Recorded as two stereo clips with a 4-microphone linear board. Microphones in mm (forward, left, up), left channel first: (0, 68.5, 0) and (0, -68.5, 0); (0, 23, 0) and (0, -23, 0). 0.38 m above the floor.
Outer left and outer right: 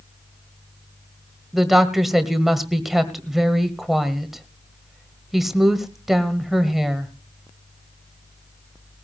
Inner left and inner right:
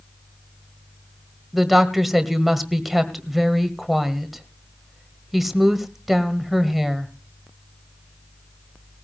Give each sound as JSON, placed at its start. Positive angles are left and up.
{"t": 1.5, "sound": "a woman speaking", "side_deg": 0, "distance_m": 1.6}